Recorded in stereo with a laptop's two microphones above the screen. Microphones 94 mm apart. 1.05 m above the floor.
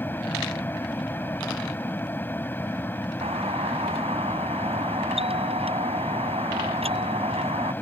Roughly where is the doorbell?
Right.